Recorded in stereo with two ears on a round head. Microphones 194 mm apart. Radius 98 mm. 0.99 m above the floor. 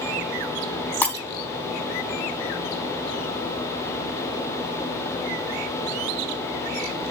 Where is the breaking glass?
10° left (ahead or behind), 2.5 m.